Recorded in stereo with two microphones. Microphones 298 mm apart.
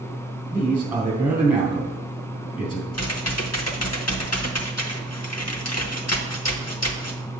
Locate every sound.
0.5 s a man speaking: centre (ahead or behind), 3.5 m
2.9 s typing on a keyboard: 55° left (ahead or behind), 0.9 m